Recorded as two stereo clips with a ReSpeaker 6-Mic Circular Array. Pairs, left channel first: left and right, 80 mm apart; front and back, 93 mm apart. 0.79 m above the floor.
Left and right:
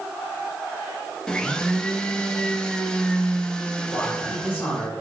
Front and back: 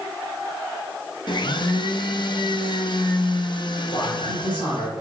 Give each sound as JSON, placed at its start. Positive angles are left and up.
{"t": 1.3, "sound": "a blender", "azimuth_deg": 10, "distance_m": 0.6}
{"t": 3.9, "sound": "a man speaking", "azimuth_deg": 20, "distance_m": 2.5}